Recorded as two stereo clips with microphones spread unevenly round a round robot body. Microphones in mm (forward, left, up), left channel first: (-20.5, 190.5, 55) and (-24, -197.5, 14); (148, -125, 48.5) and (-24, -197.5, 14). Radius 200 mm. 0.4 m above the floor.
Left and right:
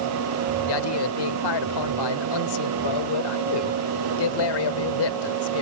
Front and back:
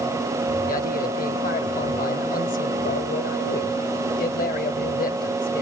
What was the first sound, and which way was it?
A man speaking, 80° left.